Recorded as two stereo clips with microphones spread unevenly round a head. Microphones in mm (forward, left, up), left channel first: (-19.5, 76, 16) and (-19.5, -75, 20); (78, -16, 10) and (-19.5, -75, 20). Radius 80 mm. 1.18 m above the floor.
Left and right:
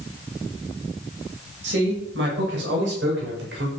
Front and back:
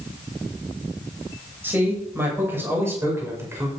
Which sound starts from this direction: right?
A man speaking, at 1.6 s.